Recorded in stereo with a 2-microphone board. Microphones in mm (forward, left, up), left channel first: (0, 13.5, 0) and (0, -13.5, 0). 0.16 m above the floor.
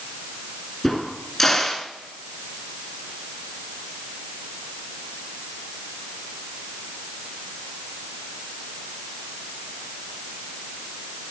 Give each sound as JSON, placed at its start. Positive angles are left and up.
{"t": 0.8, "sound": "a crack", "side_deg": 10, "distance_m": 1.7}